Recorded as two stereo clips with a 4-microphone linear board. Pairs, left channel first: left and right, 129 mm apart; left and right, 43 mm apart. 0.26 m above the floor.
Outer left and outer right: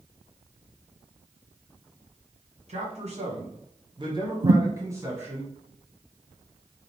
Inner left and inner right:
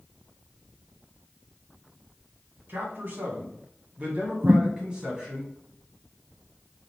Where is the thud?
60° right (ahead or behind), 0.5 m.